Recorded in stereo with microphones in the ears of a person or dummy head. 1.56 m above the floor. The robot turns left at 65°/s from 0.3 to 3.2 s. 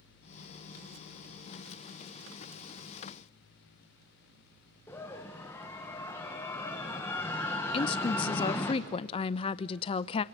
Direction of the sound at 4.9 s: 15° left (ahead or behind).